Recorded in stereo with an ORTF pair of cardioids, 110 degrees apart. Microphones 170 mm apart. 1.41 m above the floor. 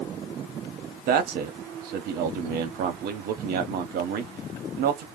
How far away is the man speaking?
About 0.9 m.